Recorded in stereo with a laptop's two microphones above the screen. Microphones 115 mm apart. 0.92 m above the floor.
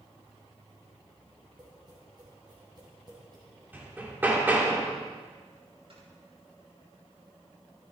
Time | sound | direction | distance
1.6 | tapping | 35° right (ahead or behind) | 6 m
3.7 | hammering | 15° right (ahead or behind) | 2.5 m
5.9 | snoring | 55° right (ahead or behind) | 6.5 m